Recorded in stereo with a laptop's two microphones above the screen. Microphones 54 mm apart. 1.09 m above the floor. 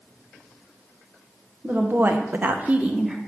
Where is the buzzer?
I don't hear a buzzer.